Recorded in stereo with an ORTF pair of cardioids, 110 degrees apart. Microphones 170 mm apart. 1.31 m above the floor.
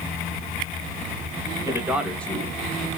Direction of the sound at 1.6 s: 20° right.